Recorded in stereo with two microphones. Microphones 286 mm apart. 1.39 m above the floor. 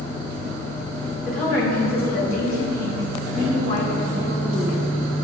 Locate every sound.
1.2 s a woman speaking: 30° left (ahead or behind), 3 m